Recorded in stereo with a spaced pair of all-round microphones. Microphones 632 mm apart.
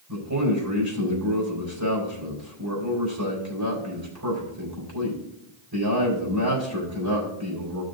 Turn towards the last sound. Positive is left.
turn(degrees=-35)  # may be behind; listen again after turning